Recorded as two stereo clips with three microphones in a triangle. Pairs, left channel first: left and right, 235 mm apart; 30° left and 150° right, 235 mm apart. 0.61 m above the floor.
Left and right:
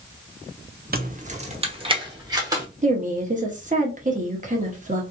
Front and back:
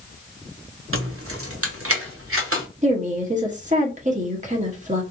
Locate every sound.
0.9 s keys jangling: 140° right, 0.6 m; by 2.7 s 165° right, 1.4 m
2.8 s a woman speaking: 120° right, 1.2 m